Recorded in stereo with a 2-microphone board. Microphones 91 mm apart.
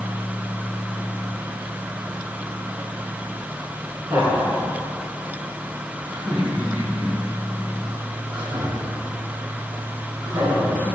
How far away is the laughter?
About 2 m.